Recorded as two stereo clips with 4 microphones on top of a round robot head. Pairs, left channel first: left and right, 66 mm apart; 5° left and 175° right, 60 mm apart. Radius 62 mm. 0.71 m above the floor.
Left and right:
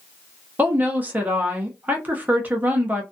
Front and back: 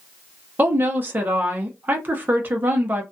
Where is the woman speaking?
135° right, 0.7 m.